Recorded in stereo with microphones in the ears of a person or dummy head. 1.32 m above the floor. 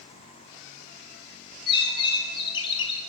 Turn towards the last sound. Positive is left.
turn(degrees=30)  # may be behind; listen again after turning